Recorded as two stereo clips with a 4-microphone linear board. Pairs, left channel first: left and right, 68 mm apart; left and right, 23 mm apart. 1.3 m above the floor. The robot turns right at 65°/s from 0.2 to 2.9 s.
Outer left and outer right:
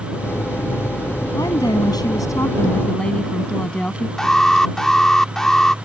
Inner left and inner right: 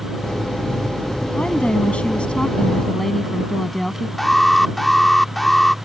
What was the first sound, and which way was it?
A woman speaking, 60° left.